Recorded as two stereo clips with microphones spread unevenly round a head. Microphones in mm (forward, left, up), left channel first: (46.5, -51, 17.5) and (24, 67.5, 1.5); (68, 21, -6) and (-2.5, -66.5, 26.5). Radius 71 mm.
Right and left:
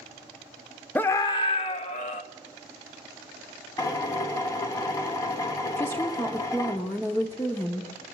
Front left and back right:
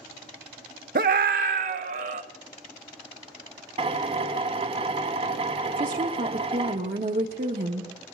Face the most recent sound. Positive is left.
turn(degrees=-155)